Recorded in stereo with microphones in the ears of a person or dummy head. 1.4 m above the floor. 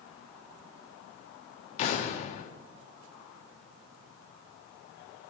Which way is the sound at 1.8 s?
50° left (ahead or behind).